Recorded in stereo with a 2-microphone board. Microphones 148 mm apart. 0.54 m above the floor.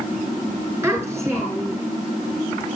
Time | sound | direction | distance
0.8 | a child speaking | 15° right (ahead or behind) | 4.5 m